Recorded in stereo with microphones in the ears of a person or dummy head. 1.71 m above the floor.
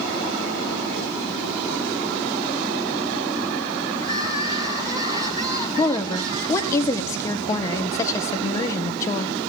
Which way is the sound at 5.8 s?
20° left (ahead or behind).